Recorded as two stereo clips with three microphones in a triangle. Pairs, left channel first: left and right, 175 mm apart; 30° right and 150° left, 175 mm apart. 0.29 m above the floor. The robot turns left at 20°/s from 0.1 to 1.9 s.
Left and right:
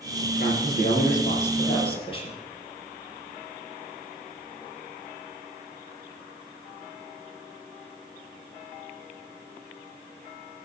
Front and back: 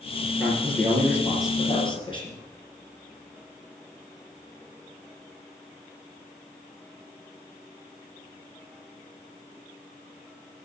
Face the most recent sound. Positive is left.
turn(degrees=30)